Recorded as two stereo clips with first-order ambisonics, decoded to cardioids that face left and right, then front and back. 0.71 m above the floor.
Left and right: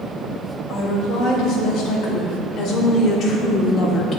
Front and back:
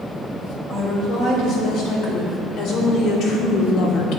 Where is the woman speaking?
50° left, 3 m; by 4.2 s 30° left, 1.0 m.